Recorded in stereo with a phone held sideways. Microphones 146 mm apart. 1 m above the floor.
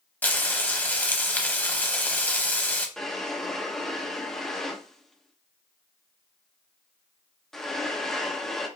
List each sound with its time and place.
0.2 s frying: 10° left (ahead or behind), 0.9 m
3.0 s a drawer: 5° left (ahead or behind), 0.9 m